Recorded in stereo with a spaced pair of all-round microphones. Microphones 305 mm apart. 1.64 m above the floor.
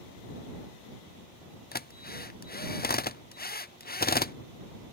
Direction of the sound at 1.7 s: 30° left (ahead or behind).